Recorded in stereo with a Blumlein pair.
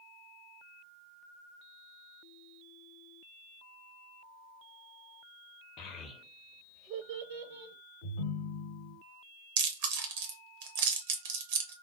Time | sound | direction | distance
5.8 | a child speaking | 30° left | 0.7 m
8.0 | a ringtone | 55° left | 0.9 m
9.6 | chewing | 55° right | 0.9 m